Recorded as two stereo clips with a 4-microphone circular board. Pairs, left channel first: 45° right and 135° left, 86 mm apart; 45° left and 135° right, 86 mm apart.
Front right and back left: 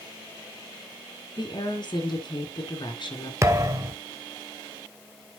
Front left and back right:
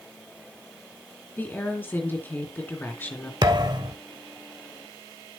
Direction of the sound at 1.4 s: 20° right.